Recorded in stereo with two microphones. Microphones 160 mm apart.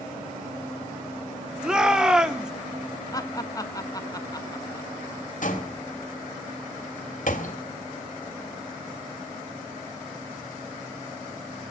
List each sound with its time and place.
1.6 s a shout: 5° right (ahead or behind), 1.5 m
3.1 s laughter: 25° left (ahead or behind), 1.6 m
5.4 s a door slam: 60° left (ahead or behind), 2.5 m